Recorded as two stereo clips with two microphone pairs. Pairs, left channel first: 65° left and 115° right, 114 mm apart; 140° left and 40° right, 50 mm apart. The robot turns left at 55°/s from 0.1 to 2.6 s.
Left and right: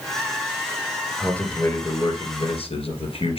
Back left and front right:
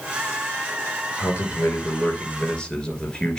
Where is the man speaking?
145° left, 2.5 m; by 3.4 s 70° left, 2.5 m.